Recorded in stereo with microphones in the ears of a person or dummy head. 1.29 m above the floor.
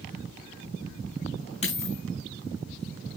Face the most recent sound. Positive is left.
turn(degrees=35)  # may be behind; listen again after turning